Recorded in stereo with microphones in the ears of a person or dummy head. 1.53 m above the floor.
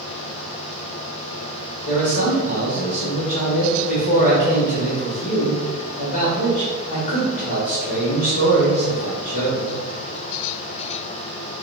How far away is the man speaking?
About 1.3 m.